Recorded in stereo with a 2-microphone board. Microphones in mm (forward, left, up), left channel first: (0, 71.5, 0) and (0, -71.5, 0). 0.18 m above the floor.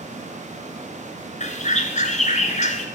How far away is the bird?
About 1.5 m.